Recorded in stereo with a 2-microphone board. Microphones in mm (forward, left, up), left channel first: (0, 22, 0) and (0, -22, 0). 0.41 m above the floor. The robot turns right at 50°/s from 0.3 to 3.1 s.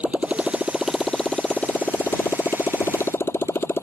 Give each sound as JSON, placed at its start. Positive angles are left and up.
{"t": 0.0, "sound": "a motorcycle", "azimuth_deg": -30}